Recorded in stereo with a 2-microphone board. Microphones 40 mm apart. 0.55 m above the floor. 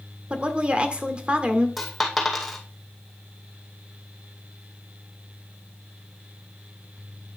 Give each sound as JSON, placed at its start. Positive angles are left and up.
{"t": 0.3, "sound": "a woman speaking", "side_deg": -30, "distance_m": 1.4}
{"t": 1.8, "sound": "a dropped coin", "side_deg": 0, "distance_m": 2.0}